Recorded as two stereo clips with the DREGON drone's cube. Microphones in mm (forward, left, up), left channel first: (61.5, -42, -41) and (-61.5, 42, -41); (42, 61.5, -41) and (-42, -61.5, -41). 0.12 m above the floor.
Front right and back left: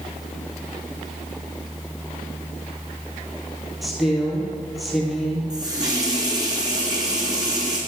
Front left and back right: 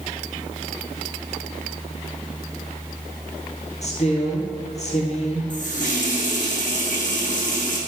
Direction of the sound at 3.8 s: 55° left.